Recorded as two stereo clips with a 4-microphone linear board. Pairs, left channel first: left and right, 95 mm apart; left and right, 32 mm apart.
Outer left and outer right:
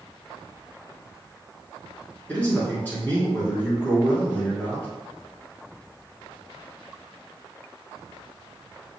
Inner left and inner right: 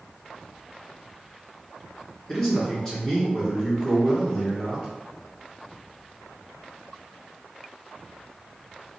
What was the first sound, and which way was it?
A man speaking, 15° left (ahead or behind).